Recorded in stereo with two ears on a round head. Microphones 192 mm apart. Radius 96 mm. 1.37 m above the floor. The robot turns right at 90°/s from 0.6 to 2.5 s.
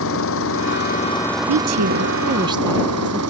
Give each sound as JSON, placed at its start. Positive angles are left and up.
{"t": 0.0, "sound": "an engine running", "azimuth_deg": 110}
{"t": 1.5, "sound": "a woman speaking", "azimuth_deg": -110}